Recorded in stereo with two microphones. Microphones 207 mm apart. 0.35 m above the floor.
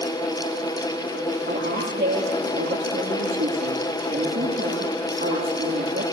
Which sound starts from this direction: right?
A woman speaking, at 1.5 s.